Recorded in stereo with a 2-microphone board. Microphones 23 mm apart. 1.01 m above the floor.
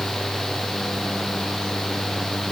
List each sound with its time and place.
Only background noise.